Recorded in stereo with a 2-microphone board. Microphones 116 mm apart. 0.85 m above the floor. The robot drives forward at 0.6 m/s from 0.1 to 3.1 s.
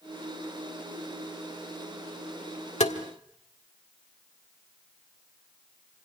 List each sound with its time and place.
2.8 s tapping: 75° left (ahead or behind), 1.7 m; by 3.0 s 70° left (ahead or behind), 1.7 m